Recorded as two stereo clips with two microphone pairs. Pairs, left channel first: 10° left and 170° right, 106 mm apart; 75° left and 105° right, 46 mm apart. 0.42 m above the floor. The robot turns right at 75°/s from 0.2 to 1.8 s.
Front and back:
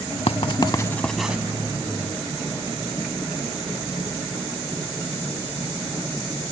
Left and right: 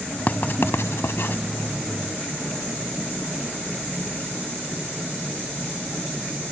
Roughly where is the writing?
Ahead left.